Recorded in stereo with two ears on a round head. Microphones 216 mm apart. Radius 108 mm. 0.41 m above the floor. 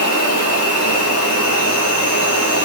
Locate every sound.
0.0 s an insect: 35° left (ahead or behind), 4.5 m